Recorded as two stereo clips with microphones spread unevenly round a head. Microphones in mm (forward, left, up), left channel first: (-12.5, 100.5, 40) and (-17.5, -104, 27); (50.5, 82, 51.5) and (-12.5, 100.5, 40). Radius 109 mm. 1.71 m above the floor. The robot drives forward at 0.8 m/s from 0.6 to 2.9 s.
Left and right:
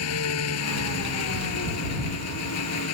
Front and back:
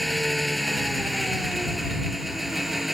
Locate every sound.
0.0 s an engine running: 70° left; by 2.9 s 75° left